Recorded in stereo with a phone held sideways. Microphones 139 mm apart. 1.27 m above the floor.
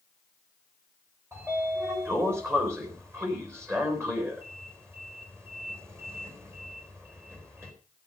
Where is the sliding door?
15° right (ahead or behind), 4 m.